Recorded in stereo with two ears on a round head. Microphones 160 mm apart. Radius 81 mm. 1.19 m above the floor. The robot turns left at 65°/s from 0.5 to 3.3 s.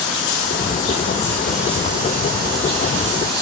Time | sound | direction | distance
0.0 | running water | 65° left | 6 m